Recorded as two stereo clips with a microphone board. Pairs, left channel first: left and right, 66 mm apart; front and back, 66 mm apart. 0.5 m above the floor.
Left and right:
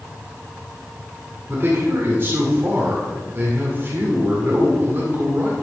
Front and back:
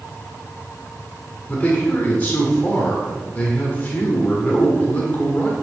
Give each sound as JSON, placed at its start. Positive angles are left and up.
{"t": 1.5, "sound": "a man speaking", "azimuth_deg": -55, "distance_m": 1.7}